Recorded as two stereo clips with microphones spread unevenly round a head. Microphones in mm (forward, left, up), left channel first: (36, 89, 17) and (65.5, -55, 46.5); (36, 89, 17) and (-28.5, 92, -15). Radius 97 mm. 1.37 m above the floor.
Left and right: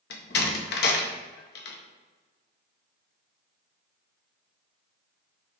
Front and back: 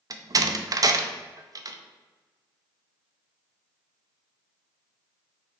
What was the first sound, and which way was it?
A door slam, 135° left.